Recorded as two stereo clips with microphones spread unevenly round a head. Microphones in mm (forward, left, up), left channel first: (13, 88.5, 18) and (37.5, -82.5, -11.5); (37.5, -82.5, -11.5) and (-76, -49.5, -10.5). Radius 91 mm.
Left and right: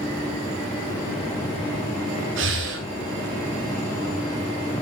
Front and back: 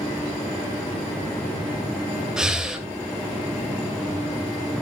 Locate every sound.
2.4 s breathing: 110° right, 2.5 m